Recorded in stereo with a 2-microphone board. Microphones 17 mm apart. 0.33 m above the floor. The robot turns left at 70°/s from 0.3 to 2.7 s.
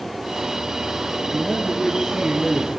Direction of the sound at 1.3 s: 160° left.